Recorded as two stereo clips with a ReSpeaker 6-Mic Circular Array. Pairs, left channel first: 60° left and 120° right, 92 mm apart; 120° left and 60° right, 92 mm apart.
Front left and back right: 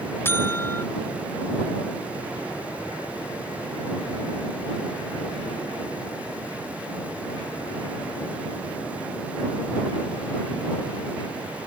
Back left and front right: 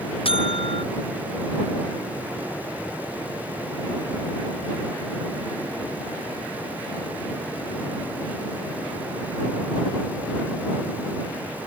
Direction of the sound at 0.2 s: 125° left.